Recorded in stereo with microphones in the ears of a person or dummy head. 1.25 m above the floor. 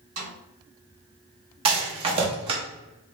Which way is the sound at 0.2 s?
75° right (ahead or behind).